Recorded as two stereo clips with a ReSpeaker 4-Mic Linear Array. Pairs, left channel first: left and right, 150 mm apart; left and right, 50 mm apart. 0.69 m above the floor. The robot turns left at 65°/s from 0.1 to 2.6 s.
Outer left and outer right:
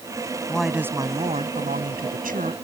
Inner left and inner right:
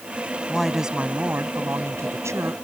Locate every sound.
0.5 s a woman speaking: 10° left; by 2.5 s 125° right